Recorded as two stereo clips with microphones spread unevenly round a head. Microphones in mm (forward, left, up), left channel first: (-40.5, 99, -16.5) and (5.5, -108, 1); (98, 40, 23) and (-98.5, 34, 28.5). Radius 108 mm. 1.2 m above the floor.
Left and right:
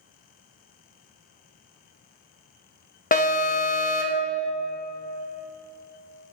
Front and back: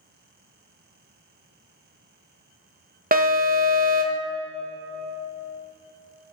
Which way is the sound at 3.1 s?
140° left.